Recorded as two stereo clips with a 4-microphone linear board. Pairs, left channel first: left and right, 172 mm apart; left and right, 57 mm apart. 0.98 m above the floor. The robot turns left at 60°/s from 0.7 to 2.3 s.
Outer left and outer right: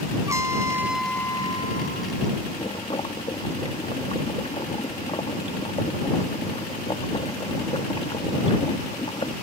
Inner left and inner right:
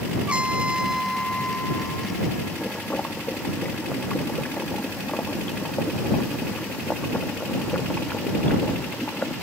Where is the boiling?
35° left (ahead or behind).